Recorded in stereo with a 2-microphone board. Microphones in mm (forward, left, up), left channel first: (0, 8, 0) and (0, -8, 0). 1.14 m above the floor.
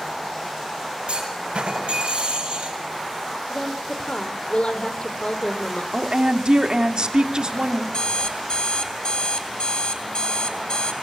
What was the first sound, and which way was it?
A clunk, 70° right (ahead or behind).